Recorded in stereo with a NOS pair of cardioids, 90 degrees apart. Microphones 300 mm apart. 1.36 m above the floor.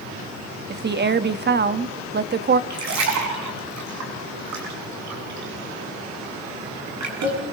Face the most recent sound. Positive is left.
turn(degrees=-65)